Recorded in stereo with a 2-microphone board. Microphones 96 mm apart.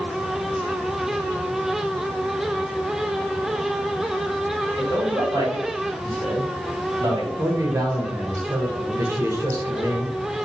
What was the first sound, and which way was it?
A man speaking, 40° right (ahead or behind).